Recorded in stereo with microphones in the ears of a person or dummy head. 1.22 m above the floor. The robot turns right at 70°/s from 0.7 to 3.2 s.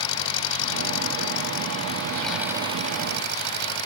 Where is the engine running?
70° left; by 3.9 s 115° right.